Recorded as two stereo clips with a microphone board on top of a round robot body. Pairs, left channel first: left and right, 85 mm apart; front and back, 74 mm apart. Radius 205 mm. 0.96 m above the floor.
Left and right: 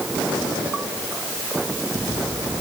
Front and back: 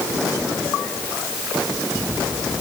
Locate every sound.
Only background noise.